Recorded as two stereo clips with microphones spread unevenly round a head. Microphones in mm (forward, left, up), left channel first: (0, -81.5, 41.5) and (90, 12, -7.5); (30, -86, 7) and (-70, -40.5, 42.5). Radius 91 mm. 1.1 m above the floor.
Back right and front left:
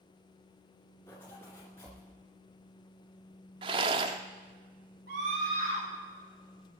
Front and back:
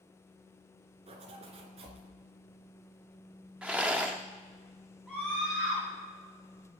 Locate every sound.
1.1 s a zipper: 160° left, 2.5 m
3.6 s a rattle: 115° left, 0.6 m
5.1 s a scream: 70° left, 7.5 m